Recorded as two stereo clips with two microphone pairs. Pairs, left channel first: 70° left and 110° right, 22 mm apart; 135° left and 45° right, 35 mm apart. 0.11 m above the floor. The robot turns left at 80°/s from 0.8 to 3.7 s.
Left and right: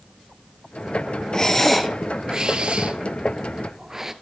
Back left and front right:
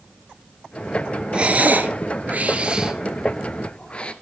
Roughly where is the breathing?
Ahead.